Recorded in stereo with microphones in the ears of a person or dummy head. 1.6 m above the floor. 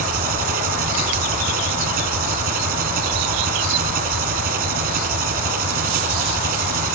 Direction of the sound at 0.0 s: 50° right (ahead or behind).